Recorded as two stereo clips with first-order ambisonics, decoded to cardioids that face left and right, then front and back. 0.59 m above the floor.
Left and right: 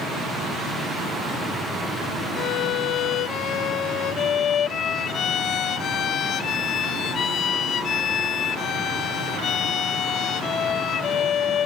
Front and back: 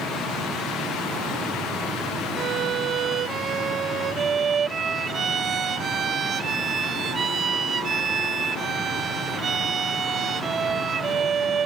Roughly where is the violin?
Behind left.